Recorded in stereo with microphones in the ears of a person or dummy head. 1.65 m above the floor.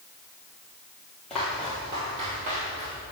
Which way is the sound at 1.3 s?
10° left (ahead or behind).